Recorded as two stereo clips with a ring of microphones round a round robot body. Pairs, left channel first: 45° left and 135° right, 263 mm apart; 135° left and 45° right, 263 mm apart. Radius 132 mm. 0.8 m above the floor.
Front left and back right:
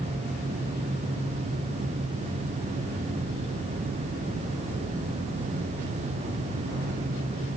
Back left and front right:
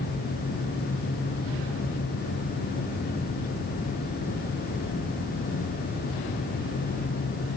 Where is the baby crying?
I don't hear a baby crying.